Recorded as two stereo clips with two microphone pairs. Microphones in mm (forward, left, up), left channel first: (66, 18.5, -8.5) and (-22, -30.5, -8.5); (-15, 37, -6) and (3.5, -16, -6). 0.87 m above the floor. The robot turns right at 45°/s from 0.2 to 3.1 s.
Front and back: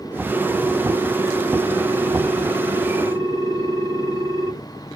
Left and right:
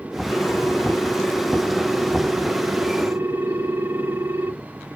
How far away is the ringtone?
About 0.7 m.